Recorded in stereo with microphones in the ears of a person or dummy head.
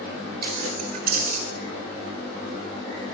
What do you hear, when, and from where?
0.4 s keys jangling: 50° right (ahead or behind), 3 m; by 1.4 s 45° right (ahead or behind), 2.5 m